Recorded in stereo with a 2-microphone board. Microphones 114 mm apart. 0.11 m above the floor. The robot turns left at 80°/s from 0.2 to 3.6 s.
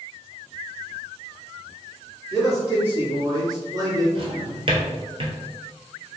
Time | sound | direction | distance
2.3 | a man speaking | 5° left | 1.9 m
4.2 | a drawer | 50° right (ahead or behind) | 0.8 m